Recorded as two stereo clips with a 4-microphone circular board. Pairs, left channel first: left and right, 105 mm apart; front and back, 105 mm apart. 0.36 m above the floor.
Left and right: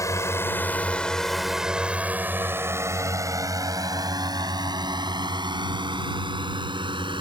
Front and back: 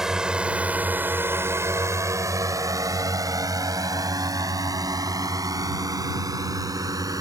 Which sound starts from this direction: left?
A drone, at 0.0 s.